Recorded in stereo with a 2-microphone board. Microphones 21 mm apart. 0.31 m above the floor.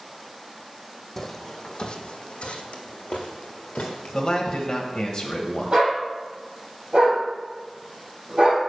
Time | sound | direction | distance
1.2 | footsteps | 5° left (ahead or behind) | 0.8 m
4.1 | a man speaking | 40° left (ahead or behind) | 1.1 m
5.7 | a dog barking | 40° right (ahead or behind) | 3.5 m